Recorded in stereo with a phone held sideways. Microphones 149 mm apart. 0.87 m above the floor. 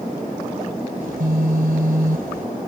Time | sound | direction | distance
1.0 | a phone buzzing | 75° right (ahead or behind) | ?